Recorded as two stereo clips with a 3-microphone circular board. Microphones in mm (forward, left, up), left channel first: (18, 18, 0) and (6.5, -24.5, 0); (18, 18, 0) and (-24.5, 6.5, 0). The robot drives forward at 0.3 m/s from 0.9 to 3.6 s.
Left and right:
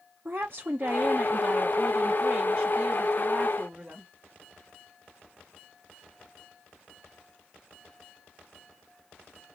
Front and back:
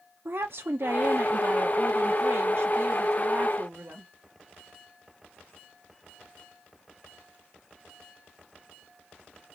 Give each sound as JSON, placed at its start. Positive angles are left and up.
{"t": 0.2, "sound": "a woman speaking", "azimuth_deg": -145, "distance_m": 0.6}